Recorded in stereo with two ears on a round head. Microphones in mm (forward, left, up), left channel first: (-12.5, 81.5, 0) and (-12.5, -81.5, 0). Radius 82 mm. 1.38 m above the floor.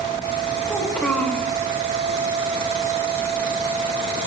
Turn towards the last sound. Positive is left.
turn(degrees=5)  # may be behind; listen again after turning